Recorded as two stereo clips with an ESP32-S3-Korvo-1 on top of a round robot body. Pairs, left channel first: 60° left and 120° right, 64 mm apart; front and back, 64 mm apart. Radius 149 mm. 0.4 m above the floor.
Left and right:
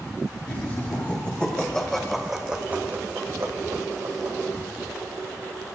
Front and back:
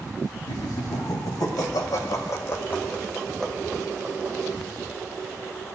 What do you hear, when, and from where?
0.5 s laughter: 5° left, 3.5 m; by 4.4 s 110° right, 2.5 m